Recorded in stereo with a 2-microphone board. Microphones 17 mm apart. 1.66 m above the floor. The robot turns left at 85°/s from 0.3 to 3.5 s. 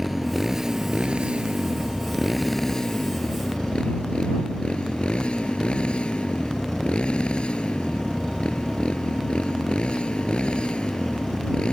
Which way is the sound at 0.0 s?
5° right (ahead or behind).